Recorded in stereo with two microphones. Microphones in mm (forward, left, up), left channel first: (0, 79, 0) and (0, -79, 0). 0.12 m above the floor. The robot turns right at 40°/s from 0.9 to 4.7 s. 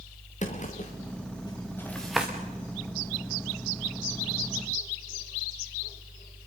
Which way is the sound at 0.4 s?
50° left (ahead or behind).